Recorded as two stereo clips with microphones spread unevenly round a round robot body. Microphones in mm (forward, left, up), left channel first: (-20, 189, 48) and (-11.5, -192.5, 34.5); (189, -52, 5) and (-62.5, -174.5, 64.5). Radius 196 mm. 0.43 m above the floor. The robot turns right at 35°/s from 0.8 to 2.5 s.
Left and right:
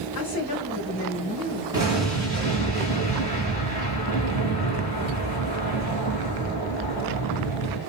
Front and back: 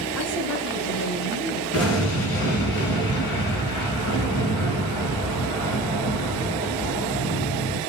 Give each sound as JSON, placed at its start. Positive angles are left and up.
{"t": 0.1, "sound": "a woman speaking", "azimuth_deg": 60, "distance_m": 1.9}
{"t": 1.7, "sound": "an explosion", "azimuth_deg": -10, "distance_m": 1.6}